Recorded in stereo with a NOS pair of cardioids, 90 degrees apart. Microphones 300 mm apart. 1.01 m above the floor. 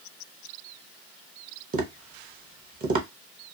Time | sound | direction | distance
1.7 | tapping | 30° right | 0.8 m